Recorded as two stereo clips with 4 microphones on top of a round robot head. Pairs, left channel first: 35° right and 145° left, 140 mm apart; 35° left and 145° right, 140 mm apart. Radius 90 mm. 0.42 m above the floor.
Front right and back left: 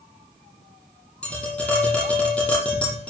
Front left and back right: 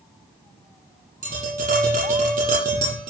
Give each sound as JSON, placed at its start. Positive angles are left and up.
{"t": 1.2, "sound": "tapping", "azimuth_deg": -115, "distance_m": 9.5}